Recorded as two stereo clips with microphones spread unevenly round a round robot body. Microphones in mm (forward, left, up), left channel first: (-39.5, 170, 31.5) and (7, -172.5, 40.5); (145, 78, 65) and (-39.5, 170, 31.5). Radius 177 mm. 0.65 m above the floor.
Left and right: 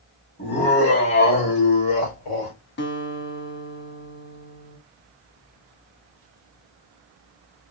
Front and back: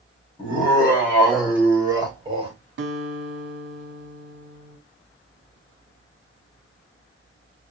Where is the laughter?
40° left, 1.5 m; by 2.5 s 100° left, 1.8 m.